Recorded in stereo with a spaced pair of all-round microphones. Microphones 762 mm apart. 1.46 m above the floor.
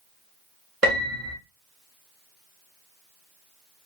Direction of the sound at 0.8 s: 45° right (ahead or behind).